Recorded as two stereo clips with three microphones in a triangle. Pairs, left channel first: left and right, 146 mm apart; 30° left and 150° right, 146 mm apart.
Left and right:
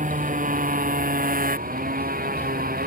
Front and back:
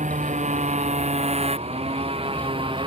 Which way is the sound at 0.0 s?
115° right.